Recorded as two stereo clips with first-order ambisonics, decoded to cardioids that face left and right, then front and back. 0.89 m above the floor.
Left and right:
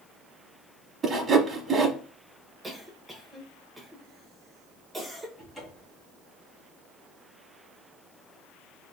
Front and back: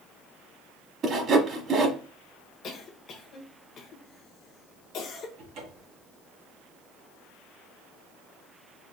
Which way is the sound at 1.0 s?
150° right.